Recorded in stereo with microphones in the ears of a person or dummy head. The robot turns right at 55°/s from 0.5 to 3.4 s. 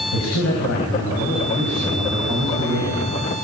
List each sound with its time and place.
0.1 s a man speaking: 100° left, 7.5 m; by 3.1 s 115° right, 7.5 m